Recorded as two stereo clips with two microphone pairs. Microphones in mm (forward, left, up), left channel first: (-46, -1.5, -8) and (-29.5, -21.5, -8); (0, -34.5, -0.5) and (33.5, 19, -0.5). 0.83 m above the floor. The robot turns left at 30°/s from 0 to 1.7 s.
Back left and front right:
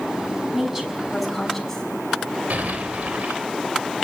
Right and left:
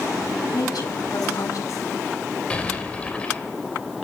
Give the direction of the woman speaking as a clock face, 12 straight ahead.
4 o'clock.